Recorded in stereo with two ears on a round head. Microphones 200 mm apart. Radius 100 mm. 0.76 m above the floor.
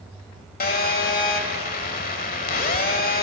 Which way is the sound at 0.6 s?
40° left (ahead or behind).